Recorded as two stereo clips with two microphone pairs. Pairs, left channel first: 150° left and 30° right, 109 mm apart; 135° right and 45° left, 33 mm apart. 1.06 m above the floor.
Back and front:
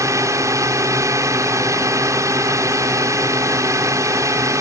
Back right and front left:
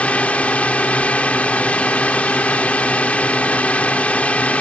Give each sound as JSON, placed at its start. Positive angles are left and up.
{"t": 0.0, "sound": "a drone", "azimuth_deg": -90}